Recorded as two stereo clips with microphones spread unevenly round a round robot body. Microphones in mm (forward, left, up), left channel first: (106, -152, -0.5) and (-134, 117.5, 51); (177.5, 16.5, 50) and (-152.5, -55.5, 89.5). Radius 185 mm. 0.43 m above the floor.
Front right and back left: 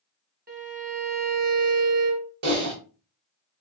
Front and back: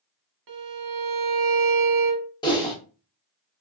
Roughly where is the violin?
Behind.